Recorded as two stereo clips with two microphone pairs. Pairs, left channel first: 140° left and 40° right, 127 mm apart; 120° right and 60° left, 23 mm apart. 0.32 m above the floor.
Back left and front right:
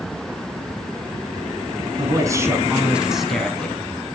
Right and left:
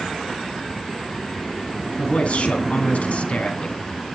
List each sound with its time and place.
2.0 s a man speaking: 95° right, 2.5 m; by 3.8 s 145° right, 2.5 m